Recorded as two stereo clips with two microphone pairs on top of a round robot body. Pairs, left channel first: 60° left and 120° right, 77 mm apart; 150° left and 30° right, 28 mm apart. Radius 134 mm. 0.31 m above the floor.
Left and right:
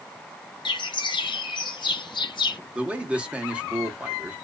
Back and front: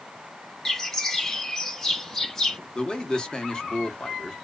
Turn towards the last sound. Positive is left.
turn(degrees=-170)